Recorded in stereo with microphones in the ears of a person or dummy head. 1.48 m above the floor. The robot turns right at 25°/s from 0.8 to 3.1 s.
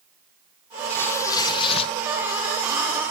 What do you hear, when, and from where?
0.9 s tearing paper: 10° left (ahead or behind), 1.2 m; by 1.9 s 35° left (ahead or behind), 1.2 m